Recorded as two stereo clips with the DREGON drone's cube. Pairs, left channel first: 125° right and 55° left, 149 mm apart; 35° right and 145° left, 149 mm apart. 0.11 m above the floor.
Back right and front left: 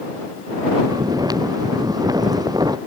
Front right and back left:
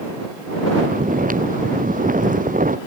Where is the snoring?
120° left.